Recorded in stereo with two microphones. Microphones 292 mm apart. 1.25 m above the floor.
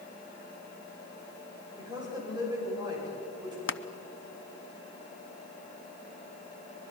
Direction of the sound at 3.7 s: 45° left (ahead or behind).